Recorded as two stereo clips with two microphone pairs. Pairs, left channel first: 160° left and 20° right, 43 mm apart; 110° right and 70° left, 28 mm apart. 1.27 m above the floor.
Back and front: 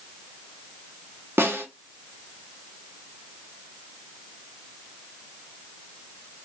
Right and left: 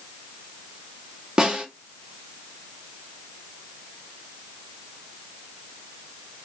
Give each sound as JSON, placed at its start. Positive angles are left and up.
{"t": 1.4, "sound": "a snare drum", "azimuth_deg": 10, "distance_m": 1.9}